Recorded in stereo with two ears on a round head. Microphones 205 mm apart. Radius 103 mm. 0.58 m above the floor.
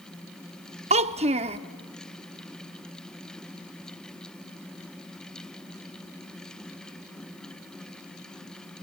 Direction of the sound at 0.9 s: 30° right (ahead or behind).